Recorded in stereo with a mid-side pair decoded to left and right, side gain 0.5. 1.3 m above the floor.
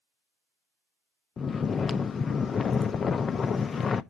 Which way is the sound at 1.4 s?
40° left.